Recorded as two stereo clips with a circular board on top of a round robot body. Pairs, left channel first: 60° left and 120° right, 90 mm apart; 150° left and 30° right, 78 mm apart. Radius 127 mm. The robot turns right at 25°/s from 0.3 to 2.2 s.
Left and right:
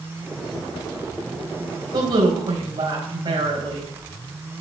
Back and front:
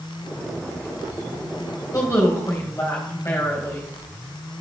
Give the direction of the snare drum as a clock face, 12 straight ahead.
No snare drum in this recording.